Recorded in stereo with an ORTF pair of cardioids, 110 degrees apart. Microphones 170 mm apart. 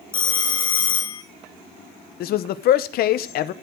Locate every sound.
0.1 s a phone ringing: 30° left, 1.5 m
2.2 s a man speaking: 70° left, 0.9 m